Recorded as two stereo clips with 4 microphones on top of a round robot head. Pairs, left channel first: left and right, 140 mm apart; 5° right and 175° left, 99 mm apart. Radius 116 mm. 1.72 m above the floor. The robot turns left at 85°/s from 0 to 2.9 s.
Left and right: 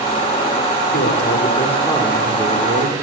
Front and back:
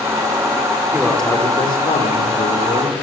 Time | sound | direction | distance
0.9 | a man speaking | 100° left | 7.5 m